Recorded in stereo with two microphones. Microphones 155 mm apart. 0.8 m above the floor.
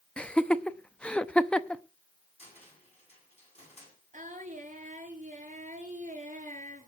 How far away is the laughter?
About 0.7 m.